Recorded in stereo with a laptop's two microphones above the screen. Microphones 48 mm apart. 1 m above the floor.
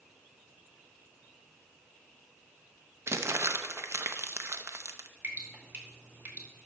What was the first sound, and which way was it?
Crumpling, 65° right (ahead or behind).